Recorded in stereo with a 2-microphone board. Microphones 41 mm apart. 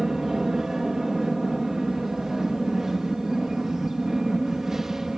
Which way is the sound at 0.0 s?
10° right (ahead or behind).